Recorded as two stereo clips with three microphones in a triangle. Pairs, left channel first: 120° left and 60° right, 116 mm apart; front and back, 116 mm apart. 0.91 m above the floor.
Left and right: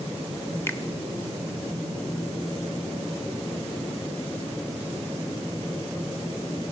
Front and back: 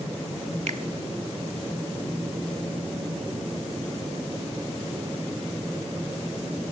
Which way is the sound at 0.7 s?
170° right.